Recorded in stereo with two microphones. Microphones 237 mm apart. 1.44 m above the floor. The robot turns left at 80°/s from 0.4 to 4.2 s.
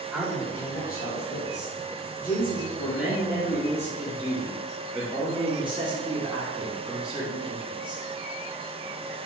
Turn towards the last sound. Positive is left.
turn(degrees=-20)